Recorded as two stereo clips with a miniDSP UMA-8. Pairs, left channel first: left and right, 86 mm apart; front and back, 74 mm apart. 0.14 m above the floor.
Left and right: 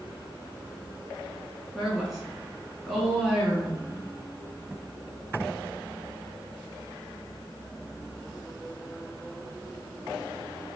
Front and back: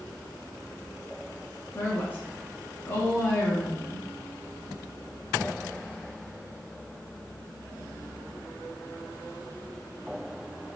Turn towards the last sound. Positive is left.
turn(degrees=-5)